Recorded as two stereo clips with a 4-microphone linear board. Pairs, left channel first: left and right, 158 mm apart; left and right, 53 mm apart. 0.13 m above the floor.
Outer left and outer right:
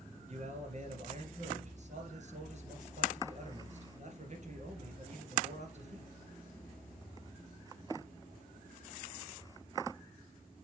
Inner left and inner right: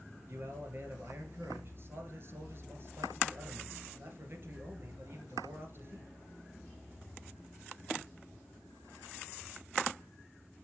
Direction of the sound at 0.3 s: 50° right (ahead or behind).